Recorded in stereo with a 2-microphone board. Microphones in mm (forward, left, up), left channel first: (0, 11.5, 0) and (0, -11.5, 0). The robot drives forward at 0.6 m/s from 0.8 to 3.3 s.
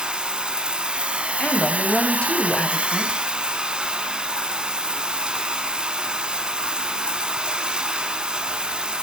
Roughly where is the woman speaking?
Left.